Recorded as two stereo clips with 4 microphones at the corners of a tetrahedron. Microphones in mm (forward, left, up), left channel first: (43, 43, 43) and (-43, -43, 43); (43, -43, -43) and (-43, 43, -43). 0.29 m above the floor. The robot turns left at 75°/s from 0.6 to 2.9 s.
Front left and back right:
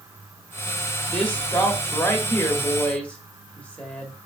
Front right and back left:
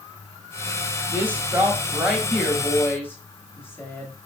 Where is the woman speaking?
120° left, 0.9 m; by 4.1 s 15° right, 0.9 m.